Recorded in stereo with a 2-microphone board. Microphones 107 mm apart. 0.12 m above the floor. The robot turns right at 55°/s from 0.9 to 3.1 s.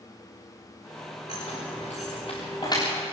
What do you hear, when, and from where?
1.3 s keys jangling: 60° left (ahead or behind), 7 m; by 2.8 s 30° left (ahead or behind), 7 m